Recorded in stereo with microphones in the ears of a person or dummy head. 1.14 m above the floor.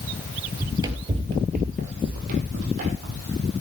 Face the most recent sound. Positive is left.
turn(degrees=-45)  # may be behind; listen again after turning